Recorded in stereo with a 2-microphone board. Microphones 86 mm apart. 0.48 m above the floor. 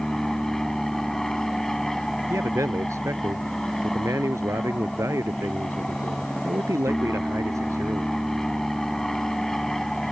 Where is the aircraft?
5° left (ahead or behind).